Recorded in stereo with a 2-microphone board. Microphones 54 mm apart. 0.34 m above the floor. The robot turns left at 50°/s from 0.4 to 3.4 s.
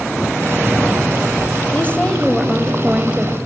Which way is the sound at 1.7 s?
40° left.